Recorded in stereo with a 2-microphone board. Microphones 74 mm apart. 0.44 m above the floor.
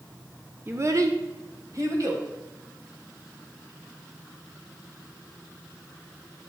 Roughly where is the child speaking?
Right.